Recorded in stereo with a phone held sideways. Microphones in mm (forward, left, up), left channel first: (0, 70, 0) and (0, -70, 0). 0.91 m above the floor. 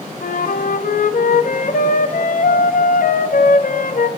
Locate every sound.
0.2 s a flute: 75° left (ahead or behind), 0.6 m